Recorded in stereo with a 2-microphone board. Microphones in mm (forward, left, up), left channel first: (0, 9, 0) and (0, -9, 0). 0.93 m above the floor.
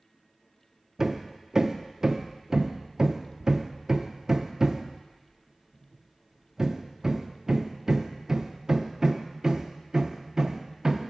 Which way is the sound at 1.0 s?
25° right (ahead or behind).